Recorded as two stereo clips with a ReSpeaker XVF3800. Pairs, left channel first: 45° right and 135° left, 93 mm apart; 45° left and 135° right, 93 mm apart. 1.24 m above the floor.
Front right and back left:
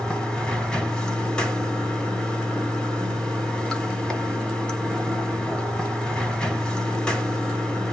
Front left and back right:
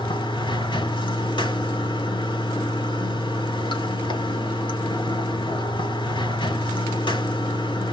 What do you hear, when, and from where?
0.0 s running water: 35° left, 1.7 m